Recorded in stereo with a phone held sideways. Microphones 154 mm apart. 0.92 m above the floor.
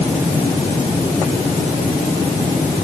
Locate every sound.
Only background noise.